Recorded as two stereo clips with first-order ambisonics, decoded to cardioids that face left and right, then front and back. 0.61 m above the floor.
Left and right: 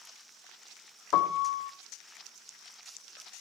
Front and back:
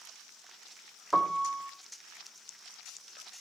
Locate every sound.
1.1 s a piano: 95° left, 1.1 m